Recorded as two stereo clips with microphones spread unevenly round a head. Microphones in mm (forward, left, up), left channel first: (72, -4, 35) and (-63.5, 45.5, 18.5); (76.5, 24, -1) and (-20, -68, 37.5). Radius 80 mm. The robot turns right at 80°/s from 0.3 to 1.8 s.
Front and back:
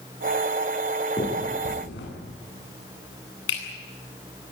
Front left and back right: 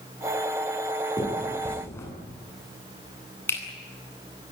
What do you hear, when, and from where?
1.2 s a finger snap: 80° right, 9.5 m; by 4.5 s 30° right, 9.5 m